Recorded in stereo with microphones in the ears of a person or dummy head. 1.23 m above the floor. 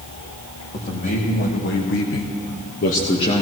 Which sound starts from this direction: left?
A man speaking, at 0.7 s.